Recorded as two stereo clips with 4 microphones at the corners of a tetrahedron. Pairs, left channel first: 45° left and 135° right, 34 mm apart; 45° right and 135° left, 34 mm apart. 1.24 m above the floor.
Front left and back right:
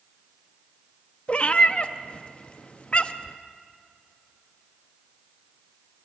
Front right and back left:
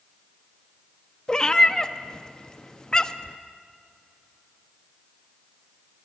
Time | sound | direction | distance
1.3 | a cat meowing | 15° left | 0.7 m